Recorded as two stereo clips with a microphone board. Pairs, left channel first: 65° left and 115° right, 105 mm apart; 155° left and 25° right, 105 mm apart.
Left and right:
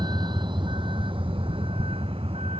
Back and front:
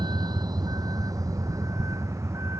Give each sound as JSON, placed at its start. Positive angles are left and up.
{"t": 0.0, "sound": "a vehicle", "azimuth_deg": -65}